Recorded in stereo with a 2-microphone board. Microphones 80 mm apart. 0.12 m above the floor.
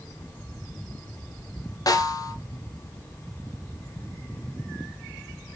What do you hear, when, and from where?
1.9 s a snare drum: 50° left (ahead or behind), 1.1 m